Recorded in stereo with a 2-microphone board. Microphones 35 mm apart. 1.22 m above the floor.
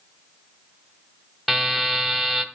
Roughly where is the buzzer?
Centre.